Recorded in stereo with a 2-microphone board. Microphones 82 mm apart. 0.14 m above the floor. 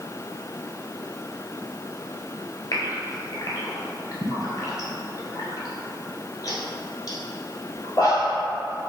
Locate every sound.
2.7 s a gasp: 50° left (ahead or behind), 0.9 m